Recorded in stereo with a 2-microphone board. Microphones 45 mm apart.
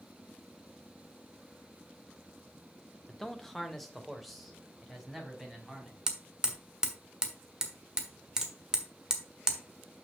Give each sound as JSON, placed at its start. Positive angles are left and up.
{"t": 3.1, "sound": "a man speaking", "side_deg": 10, "distance_m": 0.9}
{"t": 6.1, "sound": "hammering", "side_deg": -15, "distance_m": 1.4}